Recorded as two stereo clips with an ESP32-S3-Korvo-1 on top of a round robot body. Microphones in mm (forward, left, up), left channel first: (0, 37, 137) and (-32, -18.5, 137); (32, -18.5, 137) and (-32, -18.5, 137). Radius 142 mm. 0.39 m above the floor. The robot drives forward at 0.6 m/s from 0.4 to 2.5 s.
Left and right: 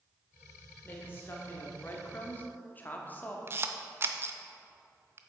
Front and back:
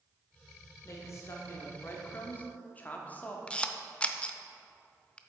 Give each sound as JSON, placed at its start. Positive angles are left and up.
{"t": 0.8, "sound": "a woman speaking", "azimuth_deg": 15, "distance_m": 1.9}
{"t": 3.5, "sound": "a camera shutter", "azimuth_deg": -70, "distance_m": 0.6}